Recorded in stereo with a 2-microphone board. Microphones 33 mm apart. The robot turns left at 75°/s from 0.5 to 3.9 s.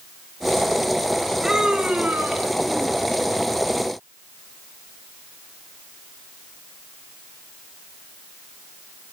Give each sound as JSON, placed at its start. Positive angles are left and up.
{"t": 1.4, "sound": "a scream", "azimuth_deg": -10, "distance_m": 4.5}